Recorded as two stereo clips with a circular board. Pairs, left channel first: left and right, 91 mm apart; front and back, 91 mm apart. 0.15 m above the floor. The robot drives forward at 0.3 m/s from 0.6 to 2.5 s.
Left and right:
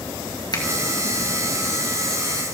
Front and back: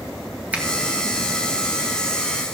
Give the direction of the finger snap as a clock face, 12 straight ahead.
8 o'clock.